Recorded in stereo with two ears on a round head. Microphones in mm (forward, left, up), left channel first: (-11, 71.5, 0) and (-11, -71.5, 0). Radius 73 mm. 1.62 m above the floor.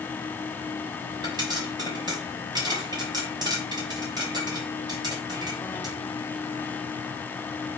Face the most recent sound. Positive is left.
turn(degrees=-25)  # may be behind; listen again after turning